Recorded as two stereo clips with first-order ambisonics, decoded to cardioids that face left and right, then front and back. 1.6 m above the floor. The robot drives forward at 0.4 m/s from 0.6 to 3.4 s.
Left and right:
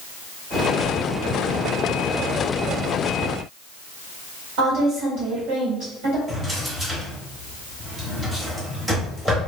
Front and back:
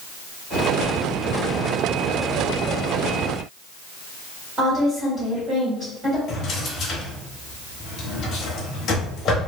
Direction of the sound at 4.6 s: 115° right.